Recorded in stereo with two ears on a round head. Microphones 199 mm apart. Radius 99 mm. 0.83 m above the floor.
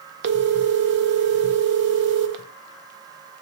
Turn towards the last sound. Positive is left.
turn(degrees=-50)  # may be behind; listen again after turning